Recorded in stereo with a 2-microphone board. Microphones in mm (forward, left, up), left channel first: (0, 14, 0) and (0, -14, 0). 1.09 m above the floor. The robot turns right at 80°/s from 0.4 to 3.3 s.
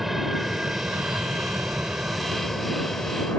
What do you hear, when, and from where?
0.0 s an aircraft: 10° right (ahead or behind); by 3.4 s 55° left (ahead or behind)